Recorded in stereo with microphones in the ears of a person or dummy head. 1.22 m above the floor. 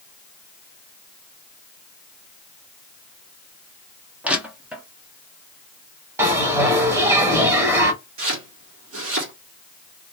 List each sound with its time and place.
4.2 s crushing: centre (ahead or behind), 0.7 m
6.2 s a bell: 10° right (ahead or behind), 1.1 m
8.2 s chopping: 65° right (ahead or behind), 1.3 m